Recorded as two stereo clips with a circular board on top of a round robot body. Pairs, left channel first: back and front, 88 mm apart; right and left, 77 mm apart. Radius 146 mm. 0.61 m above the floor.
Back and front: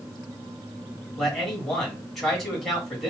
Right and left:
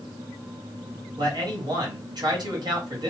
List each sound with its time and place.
1.2 s a man speaking: 90° left, 1.9 m